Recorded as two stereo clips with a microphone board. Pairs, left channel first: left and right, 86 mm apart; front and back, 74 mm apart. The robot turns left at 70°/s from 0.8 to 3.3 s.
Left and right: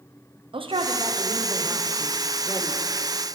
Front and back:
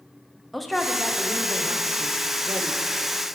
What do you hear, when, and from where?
0.5 s a man speaking: 90° right, 0.6 m; by 2.8 s 130° left, 0.6 m